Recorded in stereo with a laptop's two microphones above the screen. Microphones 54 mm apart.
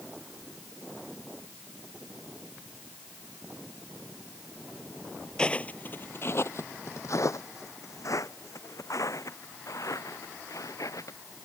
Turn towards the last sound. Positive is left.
turn(degrees=75)  # may be behind; listen again after turning